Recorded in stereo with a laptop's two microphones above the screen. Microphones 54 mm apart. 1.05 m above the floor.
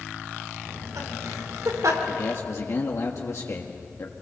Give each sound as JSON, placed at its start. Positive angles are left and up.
{"t": 0.7, "sound": "laughter", "side_deg": -80, "distance_m": 4.0}
{"t": 2.1, "sound": "a man speaking", "side_deg": 55, "distance_m": 1.5}